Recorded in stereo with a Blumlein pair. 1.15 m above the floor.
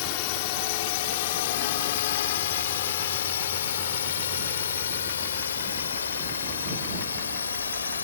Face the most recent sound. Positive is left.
turn(degrees=70)